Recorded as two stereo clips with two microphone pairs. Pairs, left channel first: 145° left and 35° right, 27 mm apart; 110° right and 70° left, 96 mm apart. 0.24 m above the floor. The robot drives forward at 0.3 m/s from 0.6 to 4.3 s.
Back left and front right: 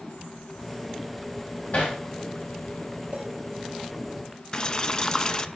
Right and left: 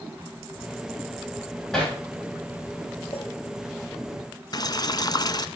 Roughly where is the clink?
Right.